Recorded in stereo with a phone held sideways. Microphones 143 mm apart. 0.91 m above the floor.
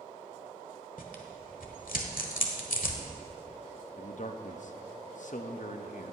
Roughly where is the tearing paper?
Left.